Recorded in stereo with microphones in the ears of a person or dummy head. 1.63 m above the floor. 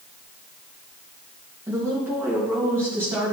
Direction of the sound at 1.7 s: 15° right (ahead or behind).